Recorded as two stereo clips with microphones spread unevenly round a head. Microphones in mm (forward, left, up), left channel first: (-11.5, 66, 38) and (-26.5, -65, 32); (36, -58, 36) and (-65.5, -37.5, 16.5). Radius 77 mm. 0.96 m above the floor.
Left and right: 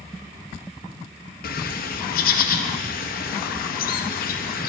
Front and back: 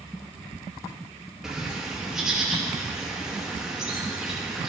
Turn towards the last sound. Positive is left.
turn(degrees=85)